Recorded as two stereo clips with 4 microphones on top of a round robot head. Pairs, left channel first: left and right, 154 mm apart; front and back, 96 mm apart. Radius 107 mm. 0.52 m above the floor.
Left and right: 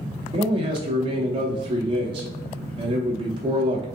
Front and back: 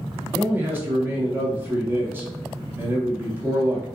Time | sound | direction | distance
0.3 | a man speaking | 125° right | 0.8 m